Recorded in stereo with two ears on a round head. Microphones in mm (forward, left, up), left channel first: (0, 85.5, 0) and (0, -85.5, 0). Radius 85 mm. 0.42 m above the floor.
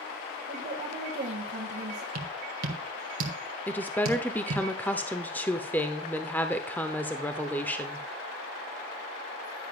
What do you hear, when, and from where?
0.5 s a woman speaking: 45° right (ahead or behind), 1.8 m
2.1 s tapping: 50° right (ahead or behind), 1.6 m
3.7 s a woman speaking: 10° left (ahead or behind), 0.7 m